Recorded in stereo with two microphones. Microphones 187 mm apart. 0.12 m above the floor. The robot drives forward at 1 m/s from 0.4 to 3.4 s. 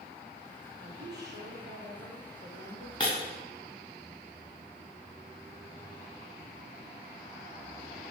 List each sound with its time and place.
0.8 s a woman speaking: 60° right (ahead or behind), 3.5 m; by 2.9 s 65° right (ahead or behind), 3.5 m
3.0 s breaking glass: 25° left (ahead or behind), 5 m